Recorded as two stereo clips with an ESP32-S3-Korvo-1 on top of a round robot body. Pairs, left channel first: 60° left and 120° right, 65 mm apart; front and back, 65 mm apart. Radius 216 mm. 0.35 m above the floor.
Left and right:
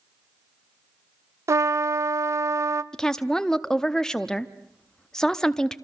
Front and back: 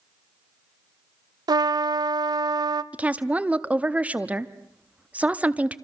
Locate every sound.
1.5 s a trumpet: 165° right, 0.6 m
2.9 s a woman speaking: 135° left, 1.2 m